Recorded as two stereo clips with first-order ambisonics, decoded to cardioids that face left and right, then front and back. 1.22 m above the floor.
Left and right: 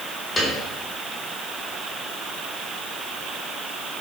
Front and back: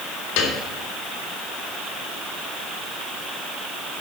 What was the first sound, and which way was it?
A piano, 10° left.